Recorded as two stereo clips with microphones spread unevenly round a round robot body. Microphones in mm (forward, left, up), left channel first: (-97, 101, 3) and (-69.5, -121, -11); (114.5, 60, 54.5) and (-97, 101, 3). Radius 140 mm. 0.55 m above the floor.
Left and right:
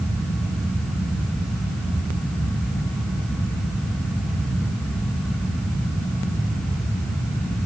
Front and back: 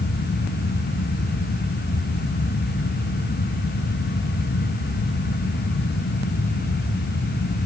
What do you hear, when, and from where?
Only background noise.